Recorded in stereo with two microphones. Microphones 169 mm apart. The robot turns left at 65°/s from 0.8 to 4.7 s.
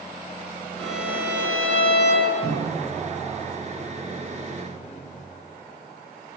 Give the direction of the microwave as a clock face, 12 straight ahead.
3 o'clock.